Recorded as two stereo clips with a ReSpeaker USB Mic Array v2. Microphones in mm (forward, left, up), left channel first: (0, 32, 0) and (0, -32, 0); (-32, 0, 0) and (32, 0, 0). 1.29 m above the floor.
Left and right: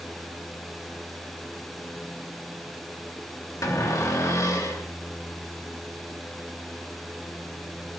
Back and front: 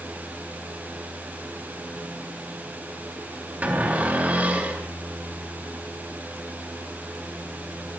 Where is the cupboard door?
65° left, 3 m.